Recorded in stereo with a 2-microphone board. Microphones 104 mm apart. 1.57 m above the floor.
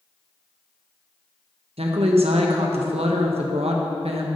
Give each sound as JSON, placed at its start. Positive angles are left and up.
{"t": 1.8, "sound": "a woman speaking", "side_deg": -75, "distance_m": 1.3}